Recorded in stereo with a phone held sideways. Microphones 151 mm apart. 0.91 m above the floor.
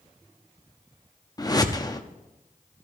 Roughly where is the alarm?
I don't hear an alarm.